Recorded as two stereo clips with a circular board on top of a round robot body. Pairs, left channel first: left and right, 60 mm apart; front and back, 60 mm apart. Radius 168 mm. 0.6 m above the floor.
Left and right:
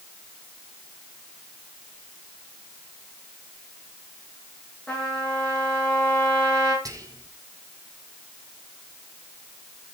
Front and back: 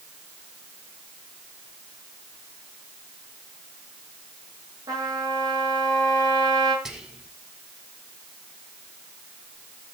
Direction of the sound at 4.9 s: 160° left.